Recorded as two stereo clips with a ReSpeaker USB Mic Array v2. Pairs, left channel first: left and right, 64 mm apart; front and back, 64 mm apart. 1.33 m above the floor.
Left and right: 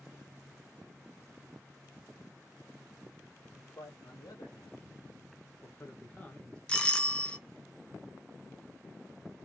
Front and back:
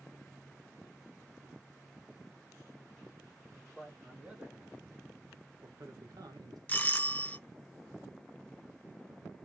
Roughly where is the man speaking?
Left.